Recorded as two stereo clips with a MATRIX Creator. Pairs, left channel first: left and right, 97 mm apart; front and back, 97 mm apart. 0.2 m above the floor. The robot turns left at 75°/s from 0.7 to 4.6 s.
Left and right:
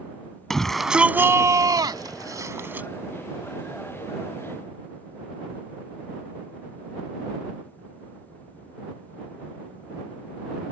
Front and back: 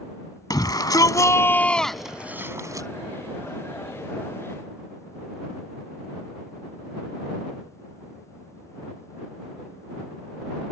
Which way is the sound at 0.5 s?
5° left.